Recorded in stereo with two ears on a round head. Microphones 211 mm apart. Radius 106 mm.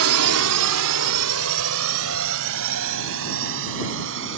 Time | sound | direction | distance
0.0 | a drone | 65° right (ahead or behind) | ?